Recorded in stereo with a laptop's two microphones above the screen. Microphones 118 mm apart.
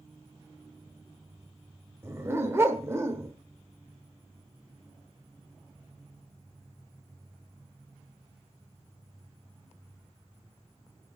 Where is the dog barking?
20° right (ahead or behind), 1.1 m.